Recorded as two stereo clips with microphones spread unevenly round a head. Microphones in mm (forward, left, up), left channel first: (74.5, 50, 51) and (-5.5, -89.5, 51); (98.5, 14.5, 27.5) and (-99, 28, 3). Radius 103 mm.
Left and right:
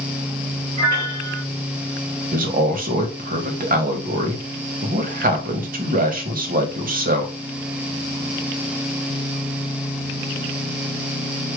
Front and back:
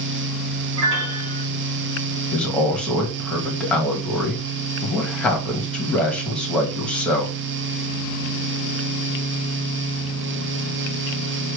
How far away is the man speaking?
About 1.7 m.